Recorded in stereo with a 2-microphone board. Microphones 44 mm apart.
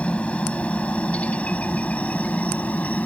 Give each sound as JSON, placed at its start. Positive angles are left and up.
{"t": 0.0, "sound": "a helicopter", "side_deg": 30}